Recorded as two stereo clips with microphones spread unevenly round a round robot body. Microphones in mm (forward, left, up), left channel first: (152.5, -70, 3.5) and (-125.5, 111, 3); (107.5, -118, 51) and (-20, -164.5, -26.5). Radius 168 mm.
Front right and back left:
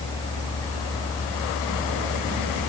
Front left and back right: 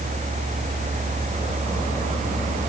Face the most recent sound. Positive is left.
No sound to turn to.